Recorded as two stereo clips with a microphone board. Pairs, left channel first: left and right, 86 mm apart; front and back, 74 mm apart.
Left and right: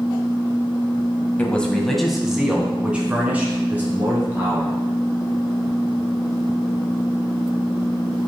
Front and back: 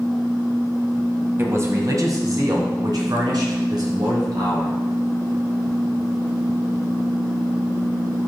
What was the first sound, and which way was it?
A man speaking, 150° left.